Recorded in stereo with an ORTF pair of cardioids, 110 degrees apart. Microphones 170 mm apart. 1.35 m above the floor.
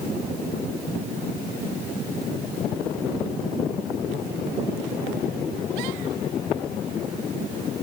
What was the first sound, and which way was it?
Only background noise.